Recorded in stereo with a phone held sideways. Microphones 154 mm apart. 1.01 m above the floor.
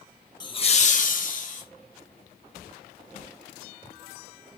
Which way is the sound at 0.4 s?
25° left (ahead or behind).